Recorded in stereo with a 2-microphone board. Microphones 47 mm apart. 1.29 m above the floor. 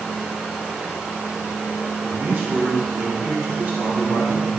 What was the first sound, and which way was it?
A man speaking, 70° right (ahead or behind).